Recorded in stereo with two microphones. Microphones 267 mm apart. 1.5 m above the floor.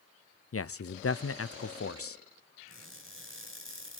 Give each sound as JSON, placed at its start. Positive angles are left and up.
{"t": 0.5, "sound": "a man speaking", "side_deg": 60, "distance_m": 0.5}
{"t": 2.7, "sound": "crushing", "side_deg": -50, "distance_m": 5.5}